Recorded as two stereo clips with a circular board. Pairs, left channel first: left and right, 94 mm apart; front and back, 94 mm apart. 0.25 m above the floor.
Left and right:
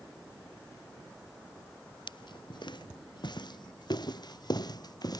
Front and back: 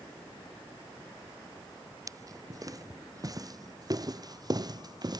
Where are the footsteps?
125° left; by 5.2 s 135° left.